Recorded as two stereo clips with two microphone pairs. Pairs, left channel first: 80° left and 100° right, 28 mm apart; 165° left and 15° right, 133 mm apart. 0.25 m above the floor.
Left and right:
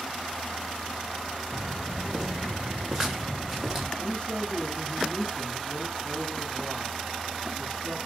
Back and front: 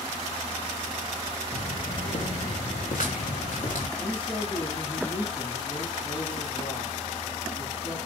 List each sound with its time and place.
1.5 s footsteps: 175° left, 5 m
4.0 s a man speaking: 130° left, 3 m